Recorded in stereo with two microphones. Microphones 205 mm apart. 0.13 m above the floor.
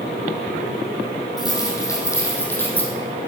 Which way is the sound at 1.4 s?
20° left (ahead or behind).